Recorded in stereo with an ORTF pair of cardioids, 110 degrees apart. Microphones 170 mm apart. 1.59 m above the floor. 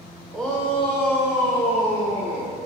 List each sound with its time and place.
0.3 s a shout: 5° left, 1.5 m; by 2.5 s 40° left, 2.0 m